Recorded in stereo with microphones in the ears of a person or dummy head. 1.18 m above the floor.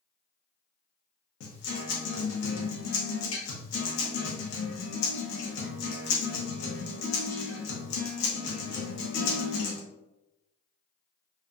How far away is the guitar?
About 0.9 m.